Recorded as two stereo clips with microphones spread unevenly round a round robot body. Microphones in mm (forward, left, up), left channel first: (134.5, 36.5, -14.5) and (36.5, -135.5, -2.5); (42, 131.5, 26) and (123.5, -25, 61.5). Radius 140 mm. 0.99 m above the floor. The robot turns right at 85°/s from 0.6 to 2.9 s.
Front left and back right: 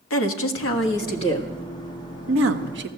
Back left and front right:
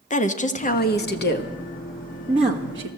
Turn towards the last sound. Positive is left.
turn(degrees=-85)